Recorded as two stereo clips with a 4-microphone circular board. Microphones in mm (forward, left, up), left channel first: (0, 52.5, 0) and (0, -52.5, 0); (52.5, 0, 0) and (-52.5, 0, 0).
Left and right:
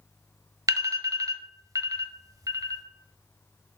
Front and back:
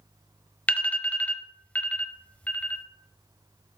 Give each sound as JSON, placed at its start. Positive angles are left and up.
{"t": 0.7, "sound": "an alarm", "azimuth_deg": -70, "distance_m": 0.9}